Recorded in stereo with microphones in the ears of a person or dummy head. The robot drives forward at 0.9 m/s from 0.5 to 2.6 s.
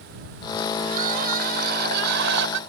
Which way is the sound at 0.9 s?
45° right (ahead or behind).